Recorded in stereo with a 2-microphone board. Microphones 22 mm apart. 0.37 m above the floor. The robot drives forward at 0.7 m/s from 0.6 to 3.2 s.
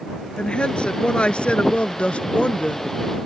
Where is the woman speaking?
50° left (ahead or behind); by 2.9 s 65° left (ahead or behind).